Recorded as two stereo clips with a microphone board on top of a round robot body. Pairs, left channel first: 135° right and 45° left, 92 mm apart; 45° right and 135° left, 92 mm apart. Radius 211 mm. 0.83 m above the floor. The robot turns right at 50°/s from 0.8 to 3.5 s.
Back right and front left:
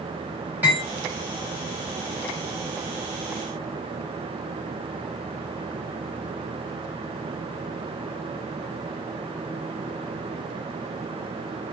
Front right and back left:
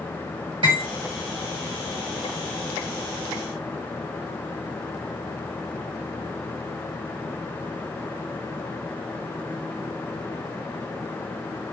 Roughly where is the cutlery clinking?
Behind left.